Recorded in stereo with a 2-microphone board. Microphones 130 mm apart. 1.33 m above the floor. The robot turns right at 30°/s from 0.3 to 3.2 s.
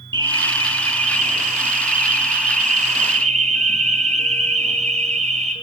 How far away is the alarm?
About 4.5 m.